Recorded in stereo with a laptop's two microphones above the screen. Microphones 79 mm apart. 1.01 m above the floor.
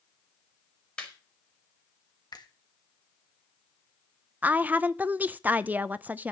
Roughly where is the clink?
I don't hear a clink.